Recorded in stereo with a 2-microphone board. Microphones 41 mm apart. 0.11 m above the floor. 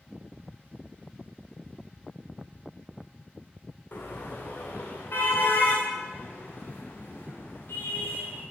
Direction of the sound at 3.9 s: 55° left (ahead or behind).